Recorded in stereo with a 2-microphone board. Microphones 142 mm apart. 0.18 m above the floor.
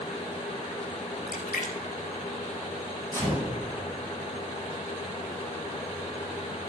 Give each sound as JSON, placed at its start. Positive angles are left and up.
{"t": 1.3, "sound": "a splash", "side_deg": 70, "distance_m": 1.3}
{"t": 3.1, "sound": "a gunshot", "side_deg": 20, "distance_m": 2.5}